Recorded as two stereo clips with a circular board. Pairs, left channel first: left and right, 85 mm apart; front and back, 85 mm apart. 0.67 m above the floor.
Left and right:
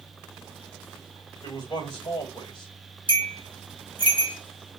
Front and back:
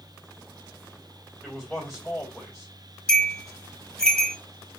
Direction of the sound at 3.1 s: 80° left.